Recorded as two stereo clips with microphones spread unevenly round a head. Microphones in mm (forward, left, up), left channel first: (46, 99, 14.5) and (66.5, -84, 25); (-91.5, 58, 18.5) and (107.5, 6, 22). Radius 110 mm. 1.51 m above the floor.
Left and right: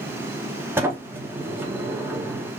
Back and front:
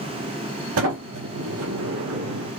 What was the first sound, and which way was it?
A sliding door, 5° right.